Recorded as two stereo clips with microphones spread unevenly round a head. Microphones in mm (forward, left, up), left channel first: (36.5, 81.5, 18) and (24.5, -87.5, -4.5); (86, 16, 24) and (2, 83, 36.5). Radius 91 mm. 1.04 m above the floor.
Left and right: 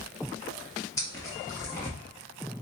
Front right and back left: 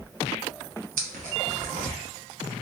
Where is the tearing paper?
160° left, 1.0 m.